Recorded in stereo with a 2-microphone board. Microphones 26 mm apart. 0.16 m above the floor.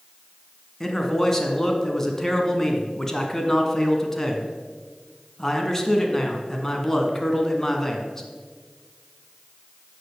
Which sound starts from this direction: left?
A man speaking, at 0.8 s.